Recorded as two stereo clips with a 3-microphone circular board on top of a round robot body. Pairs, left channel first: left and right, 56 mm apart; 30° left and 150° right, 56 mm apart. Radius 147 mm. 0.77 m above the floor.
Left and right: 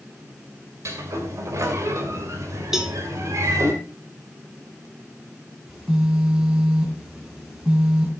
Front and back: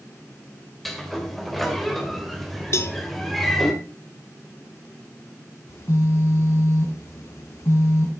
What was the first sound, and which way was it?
A sliding door, 60° right.